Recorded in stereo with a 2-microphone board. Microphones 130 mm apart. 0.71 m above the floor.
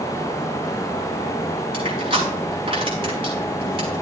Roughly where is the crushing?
Right.